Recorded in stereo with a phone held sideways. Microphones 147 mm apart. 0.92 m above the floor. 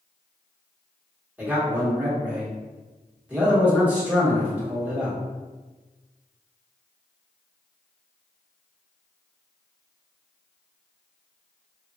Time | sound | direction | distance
1.4 | a man speaking | 10° right (ahead or behind) | 1.3 m